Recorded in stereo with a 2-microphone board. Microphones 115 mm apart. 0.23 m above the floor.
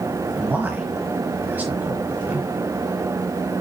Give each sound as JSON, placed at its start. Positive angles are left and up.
{"t": 0.4, "sound": "a man speaking", "side_deg": -15, "distance_m": 1.4}